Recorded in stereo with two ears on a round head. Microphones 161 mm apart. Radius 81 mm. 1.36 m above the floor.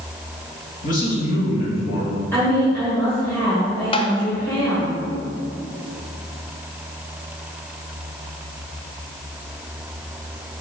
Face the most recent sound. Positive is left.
turn(degrees=30)  # may be behind; listen again after turning